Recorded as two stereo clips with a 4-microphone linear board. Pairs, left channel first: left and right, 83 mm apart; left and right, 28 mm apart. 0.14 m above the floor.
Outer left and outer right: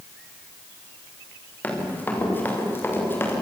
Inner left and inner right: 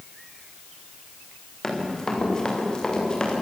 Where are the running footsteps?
20° left (ahead or behind), 7.5 m; by 3.3 s 30° left (ahead or behind), 7.5 m.